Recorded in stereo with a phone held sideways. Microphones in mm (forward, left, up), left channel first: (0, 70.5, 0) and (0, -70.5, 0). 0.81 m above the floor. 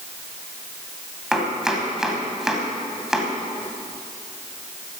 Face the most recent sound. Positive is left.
turn(degrees=-5)  # may be behind; listen again after turning